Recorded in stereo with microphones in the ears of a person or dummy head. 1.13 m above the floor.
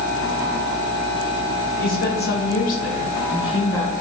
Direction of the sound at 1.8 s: 40° left (ahead or behind).